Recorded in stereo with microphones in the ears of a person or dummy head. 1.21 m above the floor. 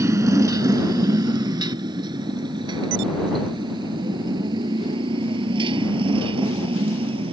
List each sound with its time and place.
0.0 s a motorcycle: 20° right (ahead or behind); by 7.3 s 35° right (ahead or behind)